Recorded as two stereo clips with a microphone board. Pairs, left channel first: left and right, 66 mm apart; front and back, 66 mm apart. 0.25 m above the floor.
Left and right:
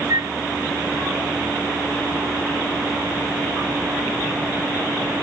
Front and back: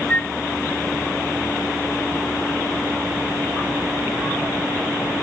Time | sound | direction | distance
0.1 | a flute | 70° right | ?